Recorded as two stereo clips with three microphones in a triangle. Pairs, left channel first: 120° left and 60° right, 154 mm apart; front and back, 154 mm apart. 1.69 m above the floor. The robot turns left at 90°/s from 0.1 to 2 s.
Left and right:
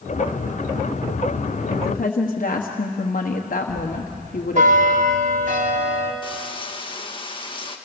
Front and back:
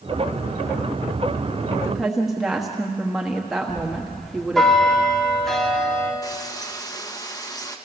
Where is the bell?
85° right, 2 m.